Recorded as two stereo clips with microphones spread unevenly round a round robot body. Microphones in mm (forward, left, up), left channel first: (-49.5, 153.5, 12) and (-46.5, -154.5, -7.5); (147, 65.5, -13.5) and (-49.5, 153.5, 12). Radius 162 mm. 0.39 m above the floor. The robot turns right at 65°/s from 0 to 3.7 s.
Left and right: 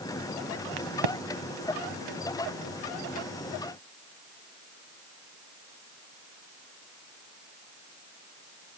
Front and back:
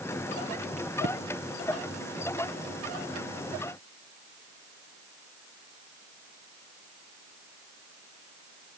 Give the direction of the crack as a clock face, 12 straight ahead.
4 o'clock.